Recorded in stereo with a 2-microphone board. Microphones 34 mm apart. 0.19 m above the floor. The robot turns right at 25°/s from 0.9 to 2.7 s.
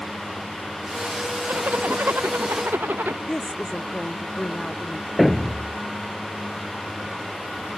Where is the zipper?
125° right; by 3.2 s 90° right.